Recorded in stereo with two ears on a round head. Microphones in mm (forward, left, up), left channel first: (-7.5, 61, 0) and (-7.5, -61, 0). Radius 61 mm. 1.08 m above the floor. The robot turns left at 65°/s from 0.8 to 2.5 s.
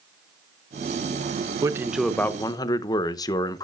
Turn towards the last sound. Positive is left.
turn(degrees=150)